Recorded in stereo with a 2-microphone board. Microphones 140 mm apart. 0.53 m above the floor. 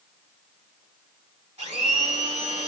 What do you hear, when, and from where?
1.6 s a blender: 45° right (ahead or behind), 1.6 m